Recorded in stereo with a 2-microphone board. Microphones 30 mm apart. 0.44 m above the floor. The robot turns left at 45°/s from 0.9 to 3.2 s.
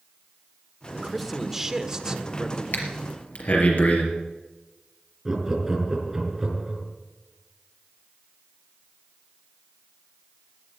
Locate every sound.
0.9 s a man speaking: 5° left, 1.2 m; by 2.6 s 75° right, 1.2 m
2.7 s breathing: 80° left, 3.5 m; by 4.0 s 60° left (ahead or behind), 3.5 m
5.2 s laughter: 15° right (ahead or behind), 5 m